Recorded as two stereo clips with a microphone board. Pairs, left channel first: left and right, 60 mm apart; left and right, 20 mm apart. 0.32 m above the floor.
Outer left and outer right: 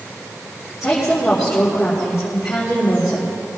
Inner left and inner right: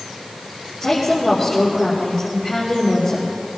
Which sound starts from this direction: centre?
A woman speaking, at 0.8 s.